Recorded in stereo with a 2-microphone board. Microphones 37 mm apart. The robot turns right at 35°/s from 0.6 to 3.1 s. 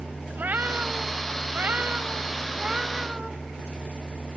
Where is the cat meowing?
105° right, 0.8 m; by 3.4 s 15° right, 0.8 m.